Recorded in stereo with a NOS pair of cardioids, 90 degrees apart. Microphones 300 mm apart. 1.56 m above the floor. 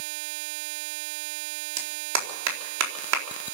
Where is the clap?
60° right, 4 m.